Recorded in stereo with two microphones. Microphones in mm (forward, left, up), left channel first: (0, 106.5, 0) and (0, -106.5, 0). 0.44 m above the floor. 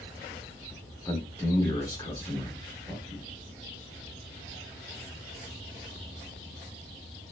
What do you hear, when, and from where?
1.1 s a man speaking: 15° left (ahead or behind), 0.9 m